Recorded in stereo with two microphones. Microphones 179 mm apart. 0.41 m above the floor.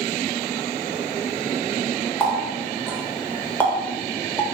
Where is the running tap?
10° left (ahead or behind), 1.0 m.